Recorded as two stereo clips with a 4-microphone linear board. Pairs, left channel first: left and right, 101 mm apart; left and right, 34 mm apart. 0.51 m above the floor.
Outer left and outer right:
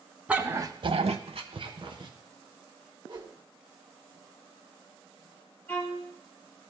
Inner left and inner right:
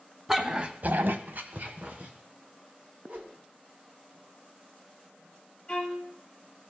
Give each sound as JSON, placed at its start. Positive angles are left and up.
{"t": 0.3, "sound": "a dog barking", "side_deg": -10, "distance_m": 0.9}
{"t": 3.1, "sound": "a whoosh", "side_deg": -50, "distance_m": 1.6}
{"t": 5.7, "sound": "a violin", "side_deg": 20, "distance_m": 2.5}